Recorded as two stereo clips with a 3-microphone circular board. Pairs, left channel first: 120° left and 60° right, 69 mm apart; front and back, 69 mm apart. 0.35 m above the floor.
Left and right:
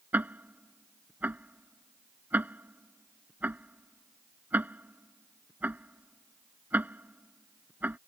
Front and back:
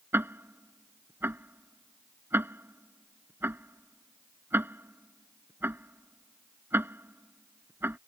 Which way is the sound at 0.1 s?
125° right.